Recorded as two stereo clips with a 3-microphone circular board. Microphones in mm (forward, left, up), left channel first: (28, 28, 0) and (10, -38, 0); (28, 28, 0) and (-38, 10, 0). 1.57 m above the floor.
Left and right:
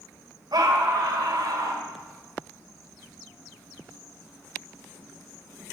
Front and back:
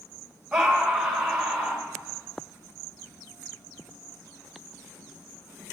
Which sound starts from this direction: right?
A scream, at 0.5 s.